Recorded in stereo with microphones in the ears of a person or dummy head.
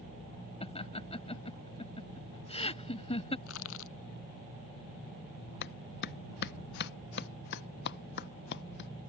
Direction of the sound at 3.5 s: 75° left (ahead or behind).